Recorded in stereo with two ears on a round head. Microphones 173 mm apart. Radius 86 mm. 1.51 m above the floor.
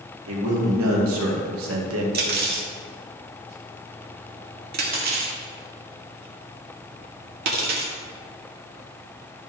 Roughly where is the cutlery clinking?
Right.